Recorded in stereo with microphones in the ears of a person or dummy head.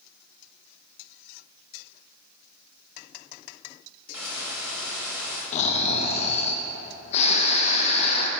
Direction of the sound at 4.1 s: 10° right (ahead or behind).